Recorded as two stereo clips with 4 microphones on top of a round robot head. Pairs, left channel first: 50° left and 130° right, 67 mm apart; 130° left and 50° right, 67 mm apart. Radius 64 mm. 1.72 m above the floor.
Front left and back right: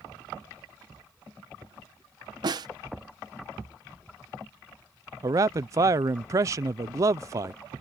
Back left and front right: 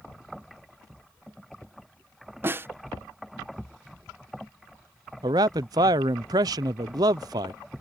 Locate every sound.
2.4 s a snare drum: 110° right
5.2 s a man speaking: 85° right